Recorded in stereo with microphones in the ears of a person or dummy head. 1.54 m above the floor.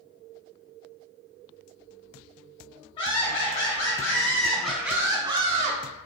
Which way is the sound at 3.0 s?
30° left (ahead or behind).